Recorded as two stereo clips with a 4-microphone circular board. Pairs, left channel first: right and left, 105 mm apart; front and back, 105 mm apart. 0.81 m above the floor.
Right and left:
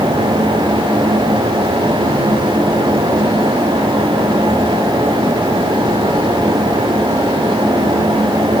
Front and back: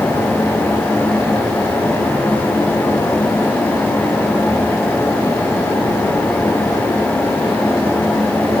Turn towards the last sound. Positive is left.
No sound to turn to.